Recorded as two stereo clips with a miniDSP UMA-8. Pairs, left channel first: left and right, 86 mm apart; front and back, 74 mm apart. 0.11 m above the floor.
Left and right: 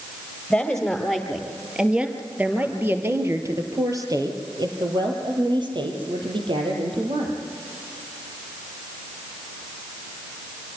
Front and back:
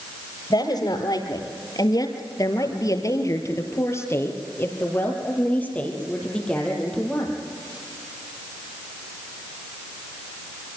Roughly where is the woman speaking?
Ahead.